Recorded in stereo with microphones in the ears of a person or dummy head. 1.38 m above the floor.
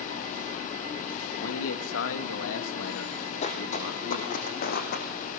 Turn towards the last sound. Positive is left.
turn(degrees=55)  # may be behind; listen again after turning